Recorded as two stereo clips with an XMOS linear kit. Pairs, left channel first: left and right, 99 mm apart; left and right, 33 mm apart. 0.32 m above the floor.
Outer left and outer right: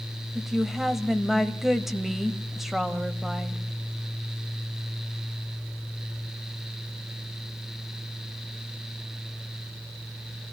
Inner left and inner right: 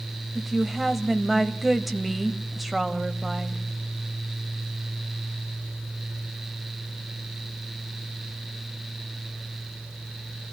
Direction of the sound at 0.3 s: 5° right (ahead or behind).